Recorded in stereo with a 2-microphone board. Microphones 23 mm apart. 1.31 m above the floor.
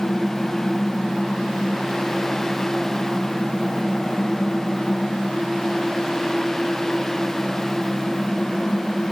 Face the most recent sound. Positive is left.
No sound to turn to.